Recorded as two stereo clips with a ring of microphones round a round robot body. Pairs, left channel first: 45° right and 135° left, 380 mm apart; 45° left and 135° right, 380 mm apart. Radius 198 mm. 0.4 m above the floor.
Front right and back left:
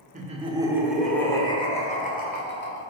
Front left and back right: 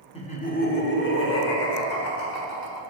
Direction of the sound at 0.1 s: 100° left.